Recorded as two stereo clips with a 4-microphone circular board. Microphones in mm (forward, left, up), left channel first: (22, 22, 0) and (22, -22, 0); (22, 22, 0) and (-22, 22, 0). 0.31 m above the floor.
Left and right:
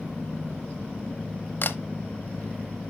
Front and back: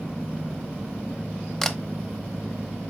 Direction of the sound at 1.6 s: 80° left.